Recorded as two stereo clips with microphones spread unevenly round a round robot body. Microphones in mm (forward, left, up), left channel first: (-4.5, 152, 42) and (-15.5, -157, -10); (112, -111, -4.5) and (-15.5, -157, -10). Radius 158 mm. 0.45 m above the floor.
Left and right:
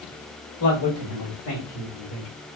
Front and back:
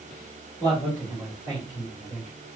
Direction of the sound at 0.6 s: 65° left.